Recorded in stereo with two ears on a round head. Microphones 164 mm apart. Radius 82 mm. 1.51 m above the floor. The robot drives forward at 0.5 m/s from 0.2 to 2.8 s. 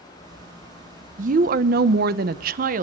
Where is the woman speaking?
45° right (ahead or behind), 0.8 m.